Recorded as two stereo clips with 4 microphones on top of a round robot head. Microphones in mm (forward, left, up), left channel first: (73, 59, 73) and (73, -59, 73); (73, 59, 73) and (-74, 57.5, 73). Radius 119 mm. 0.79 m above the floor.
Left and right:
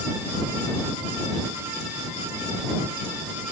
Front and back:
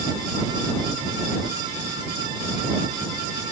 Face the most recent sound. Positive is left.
No sound to turn to.